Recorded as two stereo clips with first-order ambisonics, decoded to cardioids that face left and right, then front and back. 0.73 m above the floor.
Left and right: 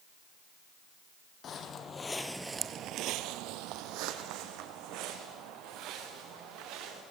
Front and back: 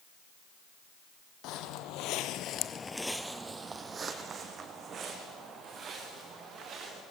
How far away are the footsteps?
About 1.9 m.